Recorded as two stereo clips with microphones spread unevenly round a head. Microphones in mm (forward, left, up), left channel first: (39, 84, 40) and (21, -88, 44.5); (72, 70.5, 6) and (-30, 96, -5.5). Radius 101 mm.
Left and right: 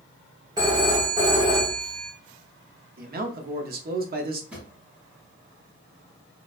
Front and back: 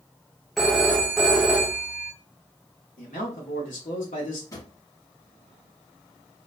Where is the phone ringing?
90° right, 0.6 m.